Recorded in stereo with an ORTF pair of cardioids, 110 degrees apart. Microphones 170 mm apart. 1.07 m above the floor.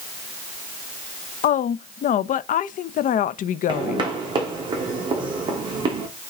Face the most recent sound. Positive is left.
turn(degrees=-30)